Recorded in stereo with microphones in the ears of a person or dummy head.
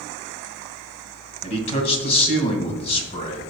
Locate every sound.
1.4 s a man speaking: 40° left (ahead or behind), 2.5 m